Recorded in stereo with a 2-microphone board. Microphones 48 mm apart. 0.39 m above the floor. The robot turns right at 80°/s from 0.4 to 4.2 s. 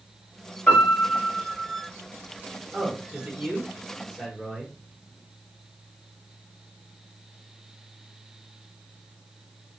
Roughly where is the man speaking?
Centre.